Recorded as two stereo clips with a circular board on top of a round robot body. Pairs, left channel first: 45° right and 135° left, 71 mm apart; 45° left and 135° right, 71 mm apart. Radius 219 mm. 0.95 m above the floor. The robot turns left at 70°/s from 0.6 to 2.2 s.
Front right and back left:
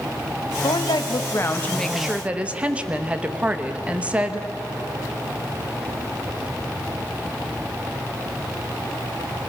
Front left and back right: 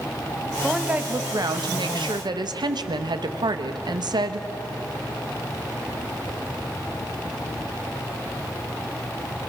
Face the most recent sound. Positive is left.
turn(degrees=-155)